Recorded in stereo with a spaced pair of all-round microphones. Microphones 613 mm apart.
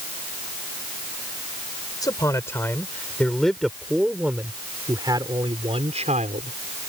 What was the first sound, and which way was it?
A man speaking, 5° left (ahead or behind).